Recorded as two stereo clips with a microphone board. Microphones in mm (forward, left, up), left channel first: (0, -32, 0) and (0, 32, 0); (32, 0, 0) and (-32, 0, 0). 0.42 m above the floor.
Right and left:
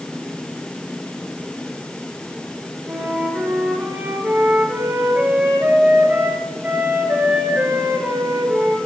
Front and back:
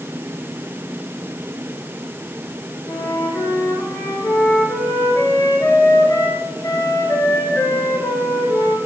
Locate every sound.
2.9 s a flute: 30° left, 3 m